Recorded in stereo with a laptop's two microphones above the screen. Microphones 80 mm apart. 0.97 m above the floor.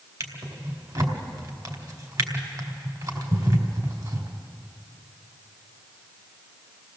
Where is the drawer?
50° right (ahead or behind), 2 m.